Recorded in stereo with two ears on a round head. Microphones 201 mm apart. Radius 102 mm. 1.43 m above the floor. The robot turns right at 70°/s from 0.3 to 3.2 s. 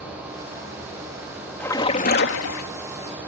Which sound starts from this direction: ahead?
A splash, at 1.6 s.